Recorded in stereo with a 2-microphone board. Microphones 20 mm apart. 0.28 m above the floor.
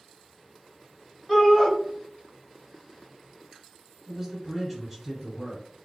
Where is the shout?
20° left (ahead or behind), 1.1 m.